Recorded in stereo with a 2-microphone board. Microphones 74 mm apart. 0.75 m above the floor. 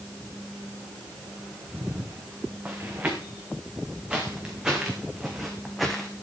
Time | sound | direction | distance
1.7 | footsteps | 25° right (ahead or behind) | 4.5 m